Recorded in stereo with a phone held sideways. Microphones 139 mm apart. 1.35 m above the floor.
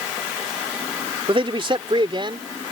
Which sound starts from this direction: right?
A man speaking, at 1.3 s.